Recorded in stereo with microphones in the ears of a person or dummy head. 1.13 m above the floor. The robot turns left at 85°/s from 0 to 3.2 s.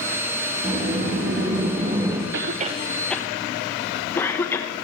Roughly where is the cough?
Right.